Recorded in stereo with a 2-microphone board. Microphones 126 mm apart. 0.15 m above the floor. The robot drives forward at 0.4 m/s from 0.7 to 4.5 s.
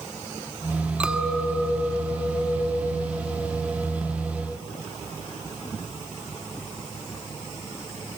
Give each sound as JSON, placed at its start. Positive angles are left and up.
{"t": 1.0, "sound": "a clink", "side_deg": -10, "distance_m": 0.7}